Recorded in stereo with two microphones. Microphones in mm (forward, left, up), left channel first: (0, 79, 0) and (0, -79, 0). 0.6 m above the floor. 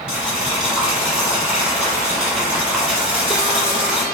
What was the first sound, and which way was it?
Boiling, 5° right (ahead or behind).